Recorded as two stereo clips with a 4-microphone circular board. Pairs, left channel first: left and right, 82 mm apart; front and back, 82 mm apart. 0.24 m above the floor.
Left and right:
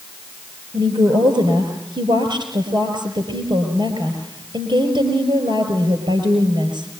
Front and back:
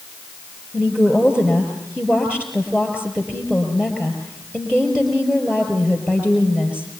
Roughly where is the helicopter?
I don't hear a helicopter.